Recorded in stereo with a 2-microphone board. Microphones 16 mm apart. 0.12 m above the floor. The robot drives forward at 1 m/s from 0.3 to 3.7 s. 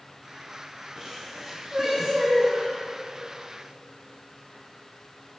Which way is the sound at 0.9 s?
55° right (ahead or behind).